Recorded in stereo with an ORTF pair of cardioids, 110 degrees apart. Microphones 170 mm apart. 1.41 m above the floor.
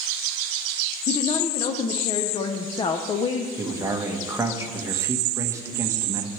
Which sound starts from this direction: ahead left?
A woman speaking, at 1.1 s.